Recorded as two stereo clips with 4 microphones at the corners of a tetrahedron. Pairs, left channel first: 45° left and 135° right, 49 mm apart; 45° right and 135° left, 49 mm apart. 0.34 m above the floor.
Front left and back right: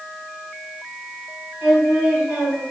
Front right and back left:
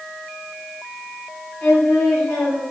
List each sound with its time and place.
1.6 s singing: 70° right, 1.8 m